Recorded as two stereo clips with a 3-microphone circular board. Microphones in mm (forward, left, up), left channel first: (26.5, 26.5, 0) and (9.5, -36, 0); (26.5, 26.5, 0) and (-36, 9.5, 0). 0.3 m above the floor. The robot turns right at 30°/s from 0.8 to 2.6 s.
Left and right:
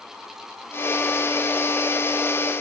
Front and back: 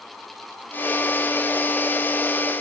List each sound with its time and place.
Only background noise.